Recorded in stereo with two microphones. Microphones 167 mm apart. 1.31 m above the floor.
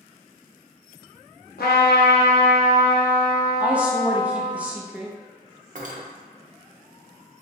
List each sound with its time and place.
1.6 s a trumpet: 80° left, 0.7 m
3.6 s a woman speaking: 10° right (ahead or behind), 0.5 m
5.8 s cutlery clinking: 55° right (ahead or behind), 0.5 m